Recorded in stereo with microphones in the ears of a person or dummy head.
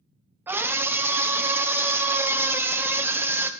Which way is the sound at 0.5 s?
10° right (ahead or behind).